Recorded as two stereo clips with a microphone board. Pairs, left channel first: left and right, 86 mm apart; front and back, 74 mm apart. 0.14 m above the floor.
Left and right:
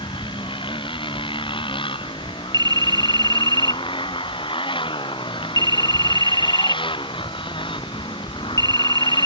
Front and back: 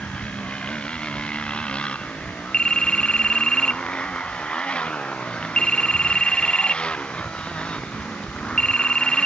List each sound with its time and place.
0.0 s a motorcycle: 75° left
2.5 s a phone ringing: 75° right